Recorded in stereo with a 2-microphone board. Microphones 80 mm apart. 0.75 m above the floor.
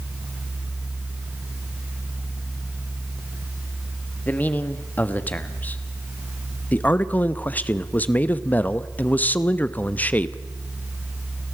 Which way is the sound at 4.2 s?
20° left (ahead or behind).